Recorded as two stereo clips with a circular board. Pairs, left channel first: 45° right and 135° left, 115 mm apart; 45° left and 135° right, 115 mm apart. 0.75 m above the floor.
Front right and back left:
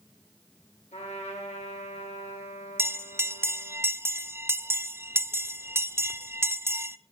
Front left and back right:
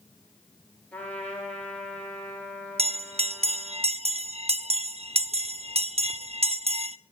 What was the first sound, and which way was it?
A trumpet, 35° right.